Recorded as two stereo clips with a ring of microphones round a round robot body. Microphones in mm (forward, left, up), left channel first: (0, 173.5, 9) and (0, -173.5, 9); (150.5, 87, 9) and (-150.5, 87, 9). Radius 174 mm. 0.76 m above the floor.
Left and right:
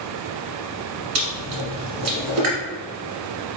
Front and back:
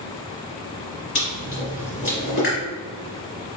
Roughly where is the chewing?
Ahead right.